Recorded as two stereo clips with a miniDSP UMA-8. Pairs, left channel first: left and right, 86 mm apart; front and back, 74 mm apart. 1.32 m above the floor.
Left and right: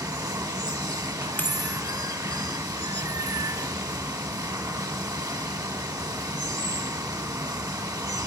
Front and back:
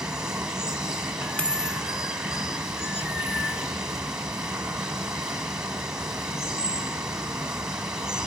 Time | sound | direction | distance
0.0 | running water | 105° right | 1.5 m
1.4 | a dropped coin | 55° left | 0.8 m